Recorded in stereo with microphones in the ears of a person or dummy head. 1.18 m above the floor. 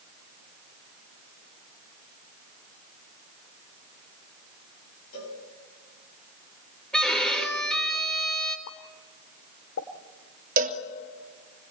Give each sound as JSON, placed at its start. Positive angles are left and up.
{"t": 5.1, "sound": "a cowbell", "side_deg": 85, "distance_m": 6.5}
{"t": 6.9, "sound": "a violin", "side_deg": 0, "distance_m": 3.5}
{"t": 8.7, "sound": "a pop", "side_deg": 70, "distance_m": 1.8}
{"t": 10.6, "sound": "a cowbell", "side_deg": -45, "distance_m": 2.0}